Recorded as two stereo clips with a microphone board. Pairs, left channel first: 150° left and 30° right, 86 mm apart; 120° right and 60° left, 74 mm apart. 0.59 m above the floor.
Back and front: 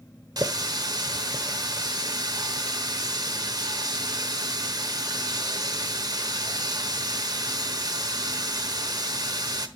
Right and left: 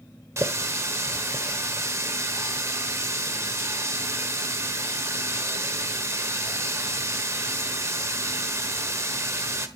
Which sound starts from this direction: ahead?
A running tap, at 0.4 s.